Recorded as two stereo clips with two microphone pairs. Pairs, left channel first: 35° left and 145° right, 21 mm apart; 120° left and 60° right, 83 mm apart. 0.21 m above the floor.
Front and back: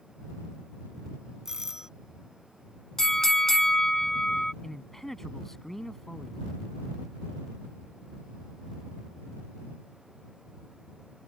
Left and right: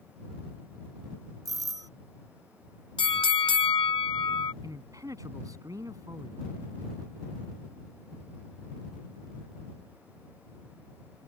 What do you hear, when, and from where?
1.4 s a doorbell: 85° right
3.0 s a bell: 105° left
4.6 s a man speaking: 35° right